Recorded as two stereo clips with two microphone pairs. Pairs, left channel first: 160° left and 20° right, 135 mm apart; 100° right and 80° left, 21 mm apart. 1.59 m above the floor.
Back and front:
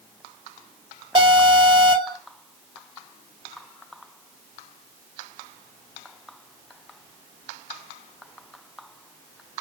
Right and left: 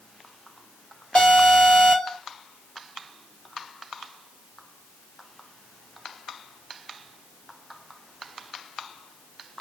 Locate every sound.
1.1 s an alarm: 70° right, 2.5 m